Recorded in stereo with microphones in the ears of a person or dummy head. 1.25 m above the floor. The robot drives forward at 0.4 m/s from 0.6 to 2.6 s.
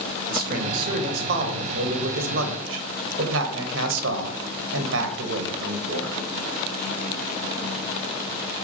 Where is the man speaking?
55° right (ahead or behind), 1.8 m; by 6.2 s 80° right, 1.4 m.